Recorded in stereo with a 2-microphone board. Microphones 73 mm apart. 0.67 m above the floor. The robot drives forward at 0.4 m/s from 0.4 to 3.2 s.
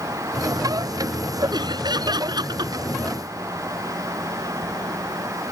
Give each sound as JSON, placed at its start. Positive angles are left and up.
{"t": 1.5, "sound": "laughter", "side_deg": -80}